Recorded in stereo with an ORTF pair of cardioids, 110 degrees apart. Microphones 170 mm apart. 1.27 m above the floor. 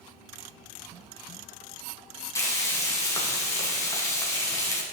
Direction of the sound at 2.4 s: 20° left.